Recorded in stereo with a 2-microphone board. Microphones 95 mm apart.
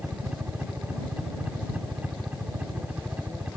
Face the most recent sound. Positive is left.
turn(degrees=-15)  # may be behind; listen again after turning